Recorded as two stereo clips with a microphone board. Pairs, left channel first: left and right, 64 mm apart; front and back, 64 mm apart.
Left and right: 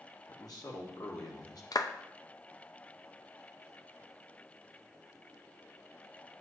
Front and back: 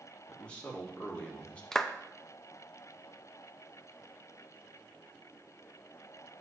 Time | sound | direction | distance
0.3 | a man speaking | 70° left | 1.7 m
1.7 | a clap | 85° left | 0.5 m